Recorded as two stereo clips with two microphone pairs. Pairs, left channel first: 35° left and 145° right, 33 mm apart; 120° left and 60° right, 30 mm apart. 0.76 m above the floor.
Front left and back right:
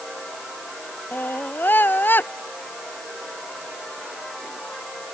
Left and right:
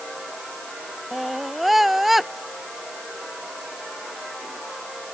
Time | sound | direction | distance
1.1 | a scream | 25° left | ?